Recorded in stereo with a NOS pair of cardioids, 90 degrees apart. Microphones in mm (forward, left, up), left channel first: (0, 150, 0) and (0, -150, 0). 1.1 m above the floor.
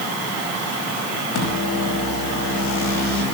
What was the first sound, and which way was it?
A microwave, 70° left.